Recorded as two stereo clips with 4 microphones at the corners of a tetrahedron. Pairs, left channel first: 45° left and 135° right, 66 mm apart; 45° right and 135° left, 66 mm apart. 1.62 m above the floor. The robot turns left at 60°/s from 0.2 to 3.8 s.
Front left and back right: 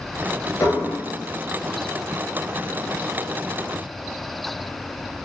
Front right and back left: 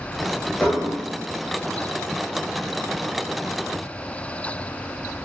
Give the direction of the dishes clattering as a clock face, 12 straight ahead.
11 o'clock.